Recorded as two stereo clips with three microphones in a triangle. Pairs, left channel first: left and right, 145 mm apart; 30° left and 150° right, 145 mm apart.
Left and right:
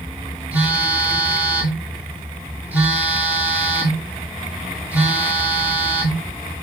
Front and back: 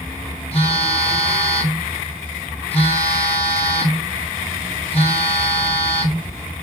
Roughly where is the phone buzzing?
Ahead.